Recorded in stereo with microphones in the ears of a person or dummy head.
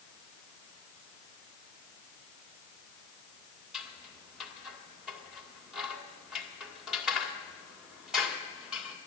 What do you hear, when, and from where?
3.7 s scissors: 5° right (ahead or behind), 2 m